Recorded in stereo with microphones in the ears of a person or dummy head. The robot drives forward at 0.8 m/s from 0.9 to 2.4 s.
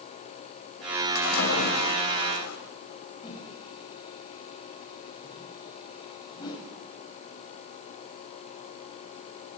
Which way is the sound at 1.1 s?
85° left.